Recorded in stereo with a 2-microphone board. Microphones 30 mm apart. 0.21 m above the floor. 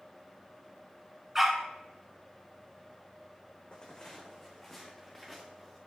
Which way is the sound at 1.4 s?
15° right (ahead or behind).